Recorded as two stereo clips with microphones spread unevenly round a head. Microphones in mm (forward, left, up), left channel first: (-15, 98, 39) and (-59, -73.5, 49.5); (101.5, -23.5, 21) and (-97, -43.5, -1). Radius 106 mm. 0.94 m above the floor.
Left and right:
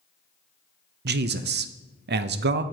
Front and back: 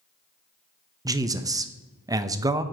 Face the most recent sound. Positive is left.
turn(degrees=-110)